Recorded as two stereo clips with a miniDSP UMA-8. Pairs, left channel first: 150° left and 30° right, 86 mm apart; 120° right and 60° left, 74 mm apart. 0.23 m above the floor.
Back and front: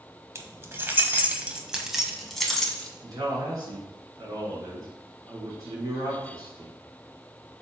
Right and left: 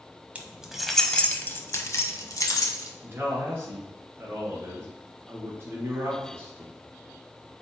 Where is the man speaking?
10° left, 3 m.